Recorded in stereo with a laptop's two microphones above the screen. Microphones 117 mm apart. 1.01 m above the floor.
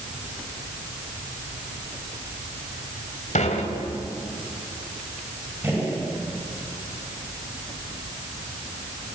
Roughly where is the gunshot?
Centre.